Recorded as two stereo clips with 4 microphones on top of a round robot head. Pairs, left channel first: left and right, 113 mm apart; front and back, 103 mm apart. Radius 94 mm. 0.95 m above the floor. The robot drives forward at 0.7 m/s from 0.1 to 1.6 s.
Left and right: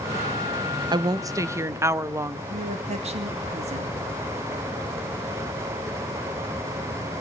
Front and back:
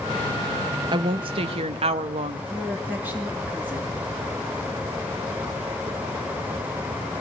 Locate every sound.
0.9 s a woman speaking: 140° right, 0.8 m; by 2.4 s 155° right, 1.2 m
2.5 s a woman speaking: 105° right, 2.5 m